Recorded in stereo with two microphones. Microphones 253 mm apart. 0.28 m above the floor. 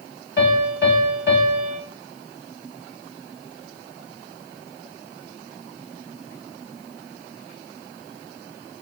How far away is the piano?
About 1.0 m.